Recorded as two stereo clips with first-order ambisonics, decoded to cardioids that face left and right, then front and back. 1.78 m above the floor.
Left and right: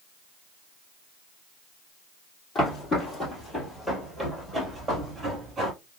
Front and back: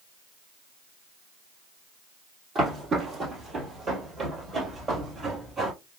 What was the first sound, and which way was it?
Footsteps, 125° left.